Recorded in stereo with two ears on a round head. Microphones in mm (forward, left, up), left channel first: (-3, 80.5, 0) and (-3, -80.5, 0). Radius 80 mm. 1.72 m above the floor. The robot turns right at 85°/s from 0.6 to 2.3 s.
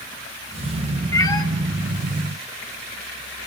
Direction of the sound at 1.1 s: 20° left (ahead or behind).